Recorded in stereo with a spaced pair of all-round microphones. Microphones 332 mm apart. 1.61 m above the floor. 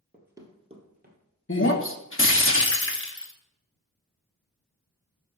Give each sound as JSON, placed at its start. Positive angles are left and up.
{"t": 0.1, "sound": "running footsteps", "side_deg": -5, "distance_m": 1.7}
{"t": 1.5, "sound": "breaking glass", "side_deg": 40, "distance_m": 0.9}